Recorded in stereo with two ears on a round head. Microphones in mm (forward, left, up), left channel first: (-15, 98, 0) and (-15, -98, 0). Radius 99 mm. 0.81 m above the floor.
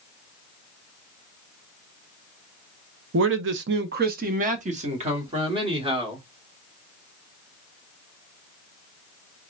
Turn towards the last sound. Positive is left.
turn(degrees=-25)  # may be behind; listen again after turning